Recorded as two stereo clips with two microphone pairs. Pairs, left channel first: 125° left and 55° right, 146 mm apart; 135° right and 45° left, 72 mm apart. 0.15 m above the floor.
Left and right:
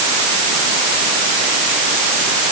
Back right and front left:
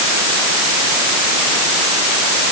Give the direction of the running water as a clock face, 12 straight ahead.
I don't hear running water.